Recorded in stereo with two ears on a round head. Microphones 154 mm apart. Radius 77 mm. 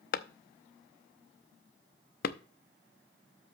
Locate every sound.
0.1 s a clap: 55° left (ahead or behind), 0.7 m